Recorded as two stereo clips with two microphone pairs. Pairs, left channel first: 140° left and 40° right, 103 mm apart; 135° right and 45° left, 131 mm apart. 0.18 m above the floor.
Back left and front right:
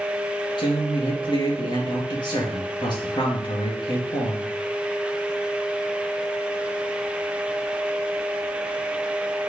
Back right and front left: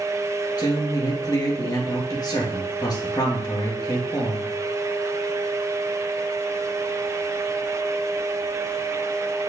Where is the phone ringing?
No phone ringing in this recording.